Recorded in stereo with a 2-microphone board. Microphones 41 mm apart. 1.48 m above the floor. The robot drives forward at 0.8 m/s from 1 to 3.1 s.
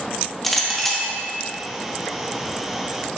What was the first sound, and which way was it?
A clink, 5° left (ahead or behind).